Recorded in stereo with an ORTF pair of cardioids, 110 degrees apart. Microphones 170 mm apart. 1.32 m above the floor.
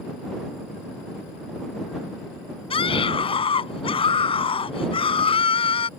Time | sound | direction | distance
2.7 | a scream | 30° left | ?